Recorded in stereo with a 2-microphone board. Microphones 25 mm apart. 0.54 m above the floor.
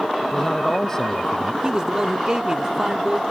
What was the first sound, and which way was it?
A man speaking, 20° left (ahead or behind).